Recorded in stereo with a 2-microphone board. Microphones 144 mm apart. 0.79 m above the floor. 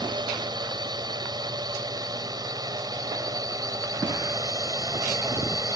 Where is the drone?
30° right (ahead or behind); by 5.8 s 25° right (ahead or behind).